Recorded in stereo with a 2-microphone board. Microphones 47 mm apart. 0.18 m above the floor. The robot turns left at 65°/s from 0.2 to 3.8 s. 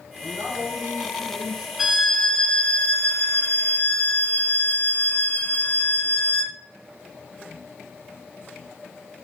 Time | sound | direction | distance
0.2 | a man speaking | 70° right | 1.9 m
1.8 | a violin | 170° right | 0.8 m